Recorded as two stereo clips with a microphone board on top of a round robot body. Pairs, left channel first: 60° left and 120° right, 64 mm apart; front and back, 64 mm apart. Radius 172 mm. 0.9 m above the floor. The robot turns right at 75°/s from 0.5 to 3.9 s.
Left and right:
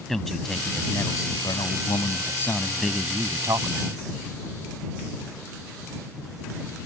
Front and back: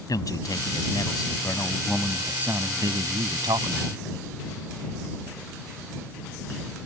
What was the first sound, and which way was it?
A man speaking, 25° right.